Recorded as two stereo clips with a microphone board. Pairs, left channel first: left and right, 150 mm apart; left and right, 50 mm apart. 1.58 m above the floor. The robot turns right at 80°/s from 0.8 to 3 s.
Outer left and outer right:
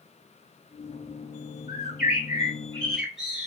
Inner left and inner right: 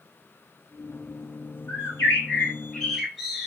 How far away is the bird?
About 1.2 m.